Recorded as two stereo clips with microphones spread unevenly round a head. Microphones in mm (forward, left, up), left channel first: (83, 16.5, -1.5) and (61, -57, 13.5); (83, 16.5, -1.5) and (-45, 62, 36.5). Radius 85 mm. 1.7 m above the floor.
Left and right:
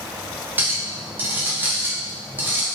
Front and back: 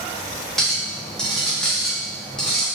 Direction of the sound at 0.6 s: 130° right.